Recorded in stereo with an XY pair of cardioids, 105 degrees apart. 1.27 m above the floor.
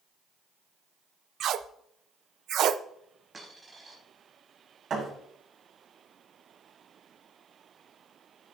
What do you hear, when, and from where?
1.4 s tape being pulled: 70° right, 0.6 m
3.3 s a dropped coin: 25° right, 4.5 m
4.9 s a thud: 50° right, 5 m